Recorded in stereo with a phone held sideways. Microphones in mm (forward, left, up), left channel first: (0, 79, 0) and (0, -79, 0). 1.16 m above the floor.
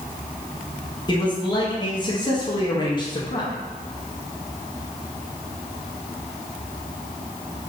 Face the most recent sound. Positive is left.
turn(degrees=30)  # may be behind; listen again after turning